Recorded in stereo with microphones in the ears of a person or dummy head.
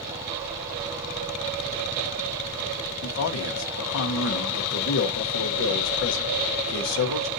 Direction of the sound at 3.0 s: 70° left (ahead or behind).